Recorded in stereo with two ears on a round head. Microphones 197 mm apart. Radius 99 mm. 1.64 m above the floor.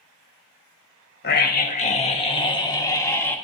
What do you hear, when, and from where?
1.2 s a scream: 45° left (ahead or behind), 1.7 m; by 3.4 s 10° left (ahead or behind), 2.5 m